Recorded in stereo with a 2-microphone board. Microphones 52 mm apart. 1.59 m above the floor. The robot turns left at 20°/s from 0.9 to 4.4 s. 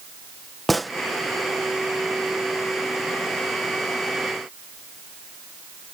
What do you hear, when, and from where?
0.7 s a gunshot: centre (ahead or behind)